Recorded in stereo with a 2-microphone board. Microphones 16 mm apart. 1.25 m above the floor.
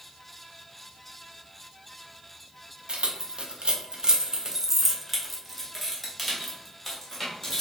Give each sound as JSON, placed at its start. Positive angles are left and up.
{"t": 2.9, "sound": "keys jangling", "side_deg": -75, "distance_m": 0.7}